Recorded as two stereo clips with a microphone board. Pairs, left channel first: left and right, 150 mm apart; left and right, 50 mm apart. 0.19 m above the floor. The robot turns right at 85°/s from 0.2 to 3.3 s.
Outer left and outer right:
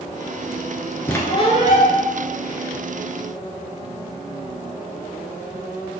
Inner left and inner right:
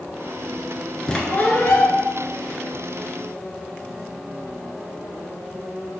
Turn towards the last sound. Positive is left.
turn(degrees=-160)